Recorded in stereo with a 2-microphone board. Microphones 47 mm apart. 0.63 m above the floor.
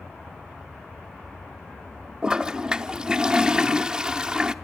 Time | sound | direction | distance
2.2 | a toilet flushing | 15° right (ahead or behind) | 0.7 m